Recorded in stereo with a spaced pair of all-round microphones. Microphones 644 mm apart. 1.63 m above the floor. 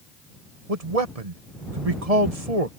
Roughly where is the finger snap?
No finger snap in this recording.